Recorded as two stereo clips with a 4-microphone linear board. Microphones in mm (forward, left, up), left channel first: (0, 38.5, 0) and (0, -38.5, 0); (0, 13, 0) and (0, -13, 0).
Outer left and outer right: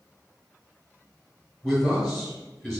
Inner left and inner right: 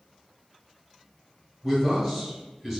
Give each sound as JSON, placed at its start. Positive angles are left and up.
{"t": 1.6, "sound": "a man speaking", "side_deg": 5, "distance_m": 1.8}